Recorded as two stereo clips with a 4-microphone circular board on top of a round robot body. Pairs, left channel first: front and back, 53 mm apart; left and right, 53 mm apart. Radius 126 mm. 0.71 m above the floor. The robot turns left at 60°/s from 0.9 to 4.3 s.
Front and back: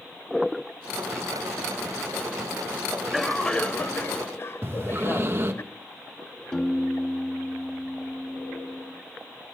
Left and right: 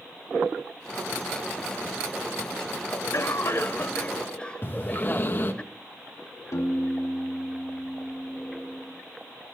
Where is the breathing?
140° left, 1.4 m.